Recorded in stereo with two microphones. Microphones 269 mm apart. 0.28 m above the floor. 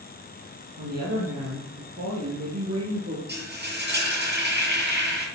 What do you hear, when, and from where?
0.8 s a woman speaking: 75° right (ahead or behind), 5.5 m; by 3.2 s 65° right (ahead or behind), 4.5 m
3.3 s frying: 40° right (ahead or behind), 6.5 m